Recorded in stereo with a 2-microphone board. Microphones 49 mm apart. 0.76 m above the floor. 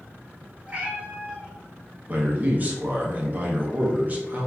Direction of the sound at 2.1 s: 35° right (ahead or behind).